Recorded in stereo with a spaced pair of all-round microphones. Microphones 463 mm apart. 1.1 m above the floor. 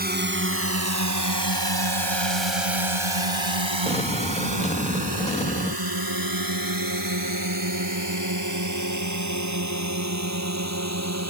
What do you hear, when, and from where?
0.0 s a drone: 20° right (ahead or behind); by 11.3 s 35° right (ahead or behind)
3.9 s an explosion: 15° left (ahead or behind)